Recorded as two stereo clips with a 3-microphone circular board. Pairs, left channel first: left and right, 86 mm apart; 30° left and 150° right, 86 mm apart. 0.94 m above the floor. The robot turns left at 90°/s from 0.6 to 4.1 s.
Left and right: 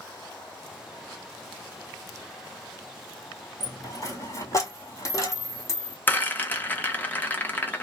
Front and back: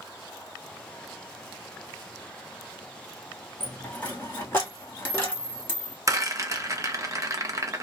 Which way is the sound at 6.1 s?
160° left.